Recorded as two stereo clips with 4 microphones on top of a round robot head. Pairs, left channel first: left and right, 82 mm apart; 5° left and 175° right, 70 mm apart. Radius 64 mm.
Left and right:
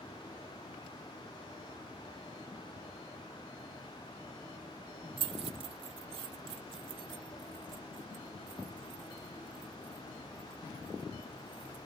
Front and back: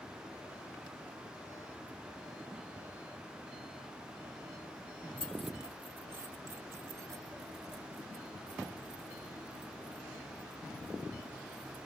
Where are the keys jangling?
70° right; by 11.9 s 135° right.